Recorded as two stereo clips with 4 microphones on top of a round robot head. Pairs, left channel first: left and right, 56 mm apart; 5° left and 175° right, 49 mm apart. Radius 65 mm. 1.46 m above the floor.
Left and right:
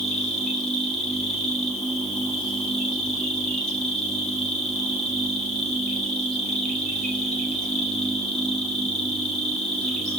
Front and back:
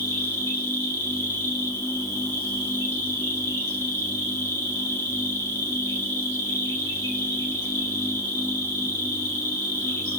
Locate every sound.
0.0 s an insect: 20° left, 4 m